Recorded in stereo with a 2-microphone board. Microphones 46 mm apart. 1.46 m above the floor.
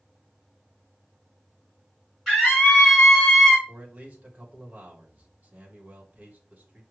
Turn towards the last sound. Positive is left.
turn(degrees=-30)  # may be behind; listen again after turning